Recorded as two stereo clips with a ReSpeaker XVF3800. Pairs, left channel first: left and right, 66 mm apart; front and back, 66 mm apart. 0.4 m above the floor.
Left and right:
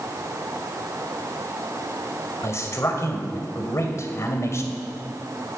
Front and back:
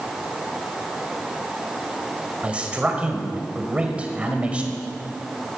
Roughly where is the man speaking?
Behind left.